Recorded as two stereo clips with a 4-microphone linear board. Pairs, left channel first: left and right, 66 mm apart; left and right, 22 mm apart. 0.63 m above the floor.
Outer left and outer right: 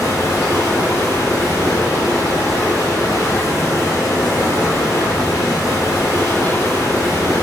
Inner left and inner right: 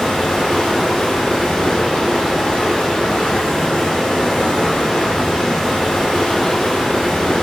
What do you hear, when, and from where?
0.0 s running water: 45° left (ahead or behind), 1.1 m